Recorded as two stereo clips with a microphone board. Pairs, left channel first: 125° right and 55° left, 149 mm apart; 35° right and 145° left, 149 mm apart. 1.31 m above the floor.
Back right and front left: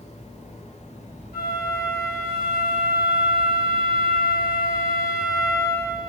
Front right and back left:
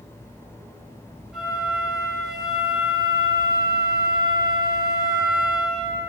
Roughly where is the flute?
Behind right.